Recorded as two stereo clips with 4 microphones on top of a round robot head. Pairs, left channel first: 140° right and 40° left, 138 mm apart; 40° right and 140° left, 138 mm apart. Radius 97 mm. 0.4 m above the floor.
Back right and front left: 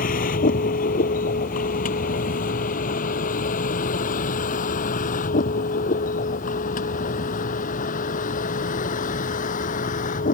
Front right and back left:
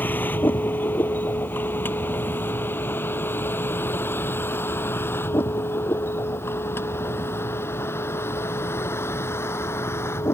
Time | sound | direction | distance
0.0 | a vehicle | 115° right | ?